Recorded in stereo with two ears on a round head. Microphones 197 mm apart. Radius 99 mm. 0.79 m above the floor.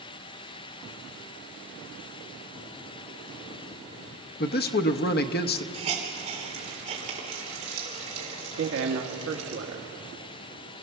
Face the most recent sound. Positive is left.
turn(degrees=-65)  # may be behind; listen again after turning